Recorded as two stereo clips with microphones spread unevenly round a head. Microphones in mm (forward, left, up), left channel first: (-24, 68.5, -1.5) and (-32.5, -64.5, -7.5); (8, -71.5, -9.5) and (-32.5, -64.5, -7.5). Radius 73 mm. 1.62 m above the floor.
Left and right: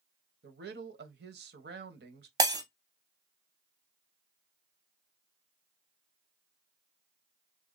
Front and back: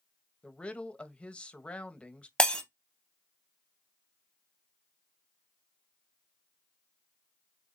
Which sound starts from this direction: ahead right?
Breaking glass, at 2.4 s.